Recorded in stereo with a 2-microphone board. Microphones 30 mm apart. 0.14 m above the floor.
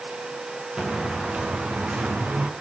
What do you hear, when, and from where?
0.8 s footsteps: 35° right (ahead or behind), 3.5 m; by 2.5 s 60° right (ahead or behind), 3 m